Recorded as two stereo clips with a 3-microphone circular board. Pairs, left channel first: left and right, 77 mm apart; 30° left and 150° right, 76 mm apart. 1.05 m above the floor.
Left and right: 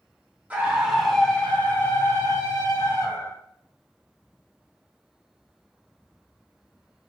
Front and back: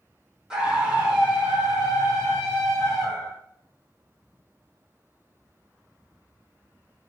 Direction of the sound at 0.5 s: 95° right.